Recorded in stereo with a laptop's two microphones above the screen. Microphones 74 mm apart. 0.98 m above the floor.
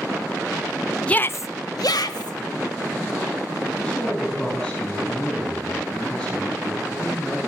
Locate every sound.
1.1 s a shout: 15° left (ahead or behind), 0.6 m; by 2.4 s 75° left (ahead or behind), 1.6 m
3.7 s a man speaking: 10° left (ahead or behind), 8.5 m